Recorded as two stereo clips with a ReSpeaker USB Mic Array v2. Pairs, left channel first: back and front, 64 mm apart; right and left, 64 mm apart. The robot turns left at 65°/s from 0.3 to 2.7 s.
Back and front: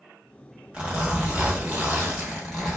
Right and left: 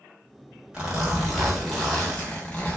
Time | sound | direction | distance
0.7 | a zipper | 35° left | 1.1 m